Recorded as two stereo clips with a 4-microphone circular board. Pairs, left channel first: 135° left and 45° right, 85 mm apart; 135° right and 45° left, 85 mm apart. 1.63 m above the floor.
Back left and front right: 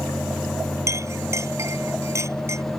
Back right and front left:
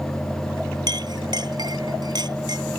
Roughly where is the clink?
Ahead.